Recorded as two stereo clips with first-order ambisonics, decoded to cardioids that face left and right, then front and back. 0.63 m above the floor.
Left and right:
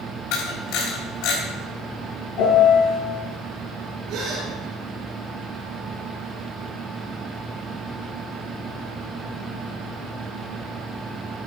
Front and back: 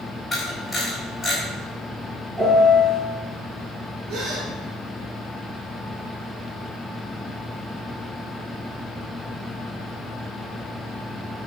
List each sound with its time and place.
0.3 s a camera shutter: 85° left, 3.5 m
2.4 s a piano: 100° left, 4 m
4.1 s a gasp: 130° right, 4.5 m